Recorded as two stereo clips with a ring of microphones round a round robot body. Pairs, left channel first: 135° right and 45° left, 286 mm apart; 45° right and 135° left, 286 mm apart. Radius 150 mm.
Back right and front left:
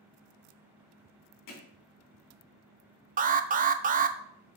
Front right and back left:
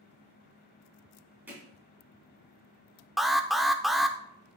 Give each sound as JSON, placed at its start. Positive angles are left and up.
{"t": 1.5, "sound": "hammering", "azimuth_deg": -140, "distance_m": 3.0}
{"t": 3.2, "sound": "an alarm", "azimuth_deg": 45, "distance_m": 0.6}